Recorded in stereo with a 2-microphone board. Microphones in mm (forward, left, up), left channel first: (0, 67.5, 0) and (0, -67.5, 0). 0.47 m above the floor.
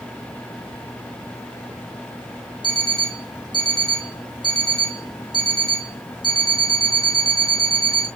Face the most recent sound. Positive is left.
turn(degrees=35)  # may be behind; listen again after turning